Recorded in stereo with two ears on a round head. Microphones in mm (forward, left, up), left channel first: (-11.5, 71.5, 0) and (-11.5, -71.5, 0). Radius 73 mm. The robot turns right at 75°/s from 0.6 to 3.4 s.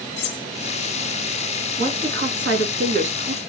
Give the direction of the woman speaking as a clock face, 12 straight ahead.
5 o'clock.